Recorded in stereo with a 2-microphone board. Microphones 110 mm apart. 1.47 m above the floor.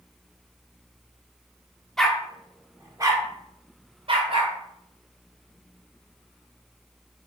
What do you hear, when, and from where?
2.0 s a dog barking: 5° left (ahead or behind), 1.1 m; by 4.5 s 55° right (ahead or behind), 2 m